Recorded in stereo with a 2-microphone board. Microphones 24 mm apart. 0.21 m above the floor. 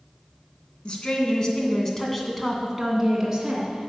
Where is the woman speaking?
45° left (ahead or behind), 2.5 m; by 3.9 s 30° right (ahead or behind), 2.5 m.